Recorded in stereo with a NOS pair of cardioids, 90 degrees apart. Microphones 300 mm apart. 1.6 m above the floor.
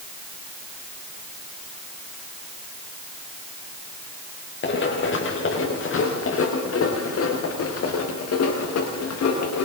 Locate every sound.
4.6 s running footsteps: 40° left, 6.5 m; by 9.7 s 60° left, 7.5 m